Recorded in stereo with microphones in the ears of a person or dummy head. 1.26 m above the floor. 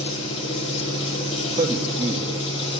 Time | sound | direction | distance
0.0 | an engine running | 35° left (ahead or behind) | 3 m
1.6 | a man speaking | 20° right (ahead or behind) | 1.8 m